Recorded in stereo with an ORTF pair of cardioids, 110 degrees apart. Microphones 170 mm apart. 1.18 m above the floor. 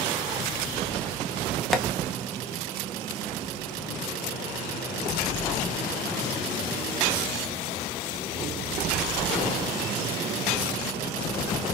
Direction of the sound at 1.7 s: Straight ahead.